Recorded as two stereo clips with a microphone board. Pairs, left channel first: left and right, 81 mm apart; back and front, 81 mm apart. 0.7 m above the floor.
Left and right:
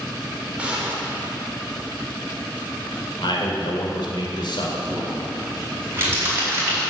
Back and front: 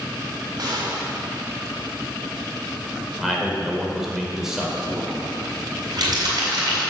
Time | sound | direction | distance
0.6 | a gunshot | 15° right | 3 m
3.2 | a man speaking | 85° left | 3 m
4.9 | crumpling | 30° right | 5 m